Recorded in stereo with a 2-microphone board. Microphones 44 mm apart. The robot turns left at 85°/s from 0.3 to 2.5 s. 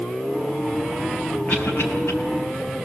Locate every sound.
1.5 s a cough: 40° left (ahead or behind), 6 m; by 2.1 s 80° left, 6 m